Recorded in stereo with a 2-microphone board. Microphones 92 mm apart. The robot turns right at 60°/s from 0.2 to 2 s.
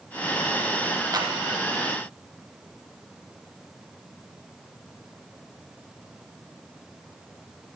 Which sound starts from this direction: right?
A clap, at 1.1 s.